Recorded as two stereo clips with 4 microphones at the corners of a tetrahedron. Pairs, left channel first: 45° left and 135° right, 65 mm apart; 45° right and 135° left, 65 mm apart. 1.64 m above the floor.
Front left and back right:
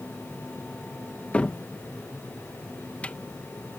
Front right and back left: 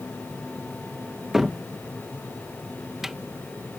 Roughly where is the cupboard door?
Ahead left.